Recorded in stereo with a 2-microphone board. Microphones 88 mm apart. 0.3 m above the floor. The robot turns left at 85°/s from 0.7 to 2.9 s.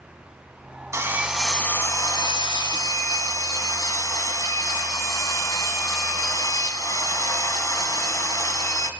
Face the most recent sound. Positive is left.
turn(degrees=55)